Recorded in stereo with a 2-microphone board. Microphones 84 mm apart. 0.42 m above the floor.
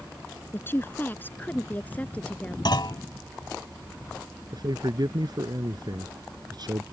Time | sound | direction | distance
0.5 | a woman speaking | 30° left (ahead or behind) | ?
2.6 | a clunk | 65° left (ahead or behind) | ?
4.5 | a man speaking | 55° right (ahead or behind) | ?